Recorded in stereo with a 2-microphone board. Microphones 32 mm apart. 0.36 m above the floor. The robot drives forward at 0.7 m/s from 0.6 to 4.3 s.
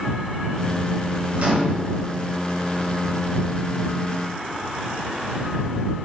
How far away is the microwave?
About 2.5 m.